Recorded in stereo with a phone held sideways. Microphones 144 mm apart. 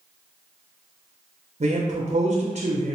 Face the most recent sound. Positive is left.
turn(degrees=-55)  # may be behind; listen again after turning